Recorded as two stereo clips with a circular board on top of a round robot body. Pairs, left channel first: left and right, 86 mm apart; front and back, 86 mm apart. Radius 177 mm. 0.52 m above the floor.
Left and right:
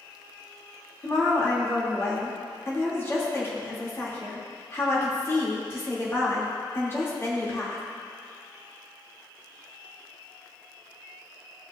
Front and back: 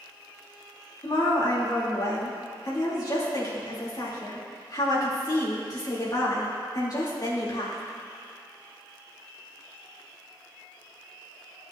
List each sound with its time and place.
1.0 s a woman speaking: 35° left, 2.5 m